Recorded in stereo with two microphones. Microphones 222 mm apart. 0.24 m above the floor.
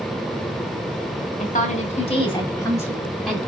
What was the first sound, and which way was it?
A woman speaking, 40° left (ahead or behind).